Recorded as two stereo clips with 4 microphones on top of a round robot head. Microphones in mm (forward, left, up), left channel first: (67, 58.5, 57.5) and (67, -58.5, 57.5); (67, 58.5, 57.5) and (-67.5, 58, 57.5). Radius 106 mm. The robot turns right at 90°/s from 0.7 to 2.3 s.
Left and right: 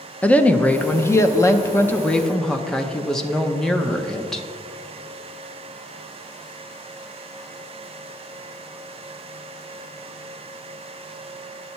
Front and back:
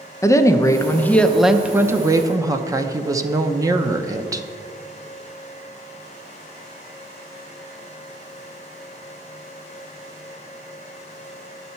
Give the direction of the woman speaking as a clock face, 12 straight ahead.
11 o'clock.